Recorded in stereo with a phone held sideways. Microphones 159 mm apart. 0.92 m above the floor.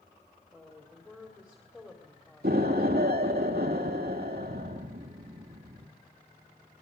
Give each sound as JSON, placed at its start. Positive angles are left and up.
{"t": 0.5, "sound": "a woman speaking", "side_deg": 5, "distance_m": 2.5}
{"t": 2.4, "sound": "an explosion", "side_deg": -80, "distance_m": 1.5}